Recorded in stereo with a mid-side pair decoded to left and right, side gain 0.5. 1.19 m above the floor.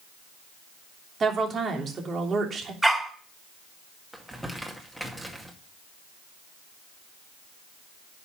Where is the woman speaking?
40° right, 3 m.